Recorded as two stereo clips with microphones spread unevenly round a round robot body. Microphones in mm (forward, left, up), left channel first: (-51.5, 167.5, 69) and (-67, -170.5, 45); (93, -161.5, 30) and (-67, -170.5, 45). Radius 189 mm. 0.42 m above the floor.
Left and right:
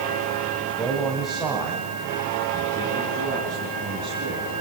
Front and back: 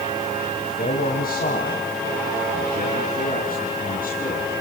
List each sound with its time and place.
0.5 s a man speaking: straight ahead, 3 m; by 4.5 s 15° right, 5 m